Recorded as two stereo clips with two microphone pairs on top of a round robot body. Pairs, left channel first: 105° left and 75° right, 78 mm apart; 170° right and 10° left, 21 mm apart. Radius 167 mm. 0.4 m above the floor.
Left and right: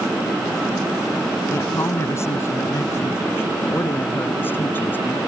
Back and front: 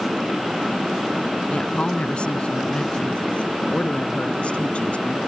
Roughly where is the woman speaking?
Behind.